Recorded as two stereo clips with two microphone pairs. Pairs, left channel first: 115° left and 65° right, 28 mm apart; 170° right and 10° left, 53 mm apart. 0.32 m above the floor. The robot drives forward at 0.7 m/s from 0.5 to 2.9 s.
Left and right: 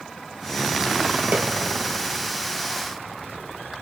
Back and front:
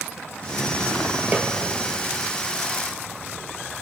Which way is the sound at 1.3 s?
55° right.